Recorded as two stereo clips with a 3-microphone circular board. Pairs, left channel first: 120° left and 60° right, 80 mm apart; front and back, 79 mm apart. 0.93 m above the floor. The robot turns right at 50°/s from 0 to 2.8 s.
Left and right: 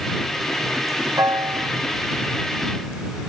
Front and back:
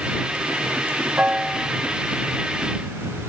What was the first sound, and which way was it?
A piano, 110° right.